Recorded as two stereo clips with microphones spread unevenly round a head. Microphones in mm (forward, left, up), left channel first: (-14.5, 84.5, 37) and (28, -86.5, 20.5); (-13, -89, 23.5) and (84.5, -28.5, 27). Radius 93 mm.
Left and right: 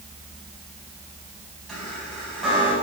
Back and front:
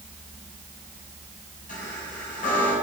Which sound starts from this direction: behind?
A chime, at 1.7 s.